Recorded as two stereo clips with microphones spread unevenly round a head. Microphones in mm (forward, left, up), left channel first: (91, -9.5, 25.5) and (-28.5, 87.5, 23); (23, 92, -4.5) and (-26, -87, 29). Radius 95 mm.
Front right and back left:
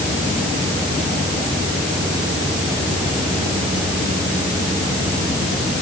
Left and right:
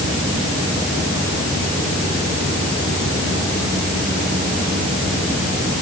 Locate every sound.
Only background noise.